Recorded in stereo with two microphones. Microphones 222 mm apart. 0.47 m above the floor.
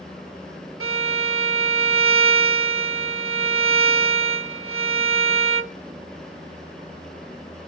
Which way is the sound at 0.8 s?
70° right (ahead or behind).